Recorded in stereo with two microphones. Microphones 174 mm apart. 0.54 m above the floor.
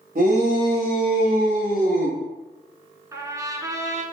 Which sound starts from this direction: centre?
A trumpet, at 3.1 s.